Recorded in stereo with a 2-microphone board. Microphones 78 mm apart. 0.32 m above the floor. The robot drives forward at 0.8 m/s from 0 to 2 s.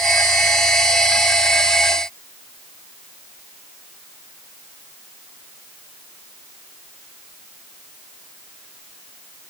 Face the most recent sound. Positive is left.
No sound to turn to.